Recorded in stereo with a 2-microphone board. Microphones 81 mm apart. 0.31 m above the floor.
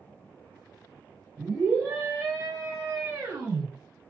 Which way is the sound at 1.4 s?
35° right (ahead or behind).